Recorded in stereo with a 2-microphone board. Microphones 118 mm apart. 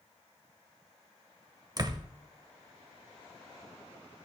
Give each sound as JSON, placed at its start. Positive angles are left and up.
{"t": 1.8, "sound": "a door slam", "side_deg": -35, "distance_m": 0.8}